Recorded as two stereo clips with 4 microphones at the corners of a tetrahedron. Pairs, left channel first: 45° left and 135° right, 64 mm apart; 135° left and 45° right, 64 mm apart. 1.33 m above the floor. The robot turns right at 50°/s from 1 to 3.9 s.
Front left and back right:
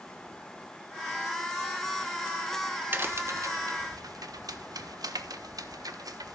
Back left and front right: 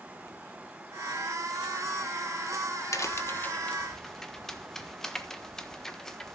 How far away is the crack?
About 1.2 m.